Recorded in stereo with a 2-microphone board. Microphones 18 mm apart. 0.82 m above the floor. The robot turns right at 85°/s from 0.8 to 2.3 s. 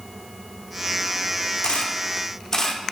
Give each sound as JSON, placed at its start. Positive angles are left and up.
{"t": 1.6, "sound": "a camera shutter", "side_deg": 85, "distance_m": 1.3}